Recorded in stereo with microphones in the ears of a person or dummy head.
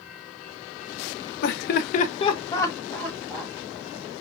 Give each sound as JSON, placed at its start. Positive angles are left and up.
{"t": 1.4, "sound": "laughter", "side_deg": 65, "distance_m": 0.5}